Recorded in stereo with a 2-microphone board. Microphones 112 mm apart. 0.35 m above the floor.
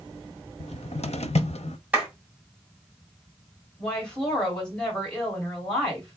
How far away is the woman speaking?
About 2 m.